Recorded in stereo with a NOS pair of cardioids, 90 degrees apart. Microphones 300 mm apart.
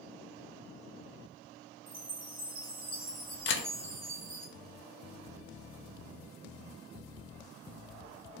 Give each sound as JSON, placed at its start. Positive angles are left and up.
{"t": 1.9, "sound": "a chime", "azimuth_deg": -30, "distance_m": 1.3}
{"t": 3.5, "sound": "a camera shutter", "azimuth_deg": 45, "distance_m": 0.6}